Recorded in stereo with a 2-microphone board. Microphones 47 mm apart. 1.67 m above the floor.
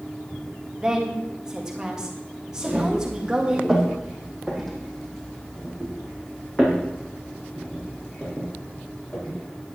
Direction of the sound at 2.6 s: 25° right (ahead or behind).